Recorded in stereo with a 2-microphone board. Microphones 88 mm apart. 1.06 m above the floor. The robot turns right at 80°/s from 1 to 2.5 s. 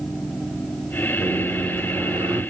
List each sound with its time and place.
1.2 s a microwave: 170° right, 1.8 m; by 2.4 s 70° right, 1.8 m